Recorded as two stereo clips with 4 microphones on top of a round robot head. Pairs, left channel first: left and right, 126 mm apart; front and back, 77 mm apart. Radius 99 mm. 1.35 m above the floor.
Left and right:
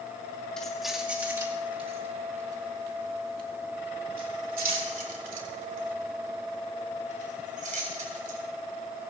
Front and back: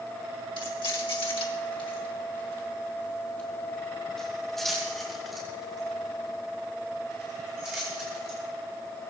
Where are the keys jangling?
5° left, 2.5 m; by 8.4 s 105° right, 8.5 m.